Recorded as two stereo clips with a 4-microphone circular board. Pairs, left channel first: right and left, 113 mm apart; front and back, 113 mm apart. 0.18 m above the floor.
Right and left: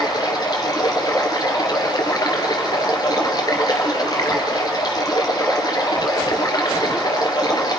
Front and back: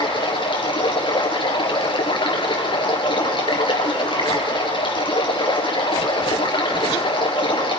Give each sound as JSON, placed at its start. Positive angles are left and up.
{"t": 0.0, "sound": "running water", "azimuth_deg": -35, "distance_m": 3.5}